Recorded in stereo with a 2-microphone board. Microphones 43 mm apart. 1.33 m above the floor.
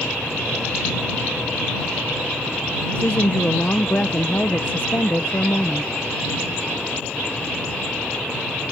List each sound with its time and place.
3.0 s a woman speaking: 40° left (ahead or behind)